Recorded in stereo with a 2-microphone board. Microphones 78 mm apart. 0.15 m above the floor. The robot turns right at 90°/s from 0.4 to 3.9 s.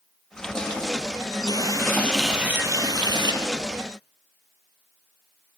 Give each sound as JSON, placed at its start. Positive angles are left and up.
{"t": 1.5, "sound": "a running tap", "azimuth_deg": 110, "distance_m": 2.5}